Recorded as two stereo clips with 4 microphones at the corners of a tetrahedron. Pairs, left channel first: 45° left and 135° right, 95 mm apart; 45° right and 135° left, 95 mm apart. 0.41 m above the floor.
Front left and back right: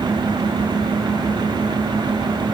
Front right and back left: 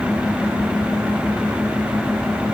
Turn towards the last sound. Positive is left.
No sound to turn to.